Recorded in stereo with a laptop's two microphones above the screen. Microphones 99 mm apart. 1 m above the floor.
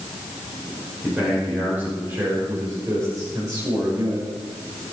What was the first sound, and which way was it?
A man speaking, 15° right (ahead or behind).